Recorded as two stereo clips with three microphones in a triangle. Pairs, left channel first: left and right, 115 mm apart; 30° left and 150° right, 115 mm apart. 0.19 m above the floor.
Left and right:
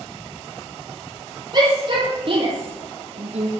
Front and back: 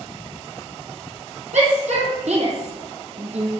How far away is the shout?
About 6 m.